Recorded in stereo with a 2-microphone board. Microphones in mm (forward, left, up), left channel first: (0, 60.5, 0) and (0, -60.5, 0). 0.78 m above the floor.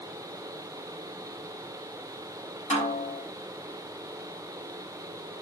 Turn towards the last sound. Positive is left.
turn(degrees=75)  # may be behind; listen again after turning